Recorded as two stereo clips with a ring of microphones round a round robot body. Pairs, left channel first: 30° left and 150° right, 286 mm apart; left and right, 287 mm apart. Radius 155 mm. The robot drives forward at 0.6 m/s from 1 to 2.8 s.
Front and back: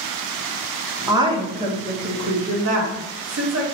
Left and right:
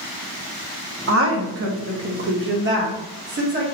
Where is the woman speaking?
75° right, 1.1 m; by 3.6 s 135° right, 1.4 m.